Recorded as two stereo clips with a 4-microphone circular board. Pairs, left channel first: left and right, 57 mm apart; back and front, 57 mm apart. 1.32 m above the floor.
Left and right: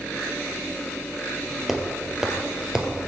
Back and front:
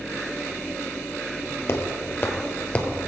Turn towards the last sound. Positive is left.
turn(degrees=-135)